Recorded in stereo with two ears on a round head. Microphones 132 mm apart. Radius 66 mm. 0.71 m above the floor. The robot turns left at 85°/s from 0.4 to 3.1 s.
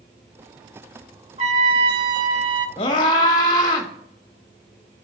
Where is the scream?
35° left (ahead or behind), 1.2 m; by 3.9 s 30° left (ahead or behind), 1.2 m.